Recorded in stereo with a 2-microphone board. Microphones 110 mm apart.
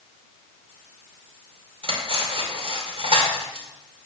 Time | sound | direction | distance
1.8 | cutlery clinking | 60° right (ahead or behind) | 2 m